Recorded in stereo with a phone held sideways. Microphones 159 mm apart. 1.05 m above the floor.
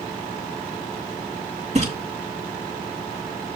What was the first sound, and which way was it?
A splash, 45° right (ahead or behind).